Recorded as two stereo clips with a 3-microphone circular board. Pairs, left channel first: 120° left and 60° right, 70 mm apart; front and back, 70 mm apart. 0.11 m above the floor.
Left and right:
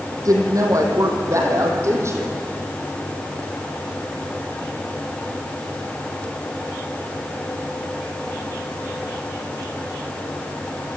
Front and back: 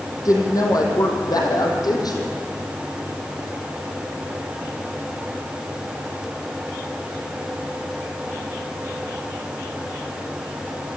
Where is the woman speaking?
30° right, 4.5 m; by 2.3 s 15° right, 5 m.